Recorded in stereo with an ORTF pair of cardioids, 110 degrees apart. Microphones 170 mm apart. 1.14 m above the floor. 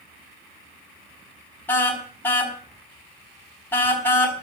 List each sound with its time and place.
1.7 s a car horn: 10° left, 4.5 m